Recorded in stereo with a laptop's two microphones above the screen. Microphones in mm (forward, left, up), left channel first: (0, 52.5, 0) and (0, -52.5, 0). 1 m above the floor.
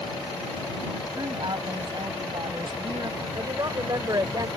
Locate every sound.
1.1 s a woman speaking: 45° right (ahead or behind)
3.4 s a woman speaking: 40° right (ahead or behind)